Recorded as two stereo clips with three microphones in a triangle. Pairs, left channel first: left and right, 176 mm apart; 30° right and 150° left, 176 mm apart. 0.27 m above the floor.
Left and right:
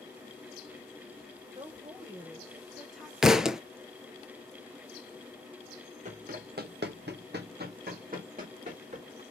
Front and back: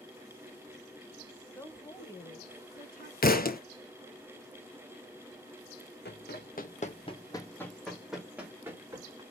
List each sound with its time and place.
1.6 s a woman speaking: 100° right, 1.0 m; by 3.1 s straight ahead, 1.4 m
3.2 s a thud: 5° right, 0.6 m
6.0 s running footsteps: 45° right, 0.9 m; by 9.2 s 140° right, 1.7 m